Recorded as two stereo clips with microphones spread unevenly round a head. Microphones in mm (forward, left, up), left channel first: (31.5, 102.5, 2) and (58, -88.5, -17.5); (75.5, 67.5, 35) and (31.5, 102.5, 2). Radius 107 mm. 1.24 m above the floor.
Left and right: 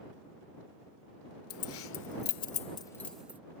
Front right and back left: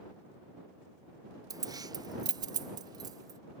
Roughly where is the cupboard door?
I don't hear a cupboard door.